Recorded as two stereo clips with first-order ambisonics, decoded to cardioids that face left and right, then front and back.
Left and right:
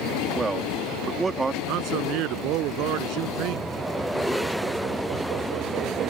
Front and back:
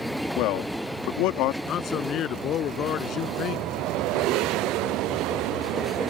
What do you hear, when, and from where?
0.4 s a man speaking: 15° right
1.7 s a man speaking: 55° right